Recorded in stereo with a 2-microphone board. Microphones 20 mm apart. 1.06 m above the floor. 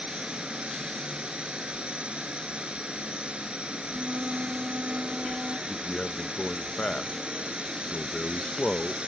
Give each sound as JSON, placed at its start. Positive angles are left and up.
{"t": 0.0, "sound": "a drone", "side_deg": -85}
{"t": 3.9, "sound": "a flute", "side_deg": -75}
{"t": 5.7, "sound": "a man speaking", "side_deg": 65}